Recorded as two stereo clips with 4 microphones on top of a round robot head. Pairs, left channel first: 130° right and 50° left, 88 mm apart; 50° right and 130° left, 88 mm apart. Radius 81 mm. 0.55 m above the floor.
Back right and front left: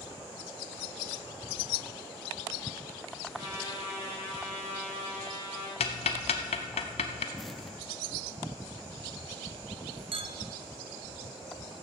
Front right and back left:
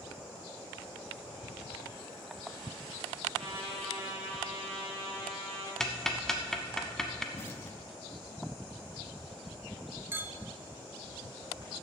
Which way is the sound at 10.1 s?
65° left.